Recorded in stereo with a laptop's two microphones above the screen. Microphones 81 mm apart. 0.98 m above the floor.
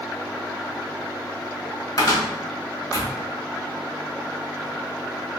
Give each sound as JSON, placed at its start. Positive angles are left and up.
{"t": 2.0, "sound": "a cupboard door", "side_deg": 40, "distance_m": 1.0}